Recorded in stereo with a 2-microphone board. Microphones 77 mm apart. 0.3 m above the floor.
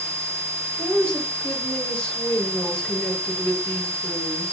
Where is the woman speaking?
15° left (ahead or behind), 1.8 m.